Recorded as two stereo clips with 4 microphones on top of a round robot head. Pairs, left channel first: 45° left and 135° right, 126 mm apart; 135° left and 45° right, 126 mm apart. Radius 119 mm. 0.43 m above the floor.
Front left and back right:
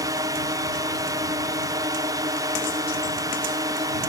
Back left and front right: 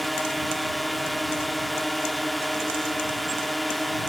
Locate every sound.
0.0 s a drone: 135° right